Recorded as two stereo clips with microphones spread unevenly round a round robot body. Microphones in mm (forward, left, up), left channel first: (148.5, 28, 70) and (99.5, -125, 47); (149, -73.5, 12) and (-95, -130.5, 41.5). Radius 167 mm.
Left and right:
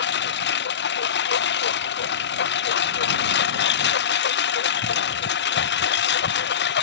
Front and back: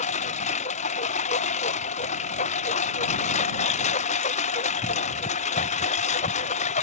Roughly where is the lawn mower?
Left.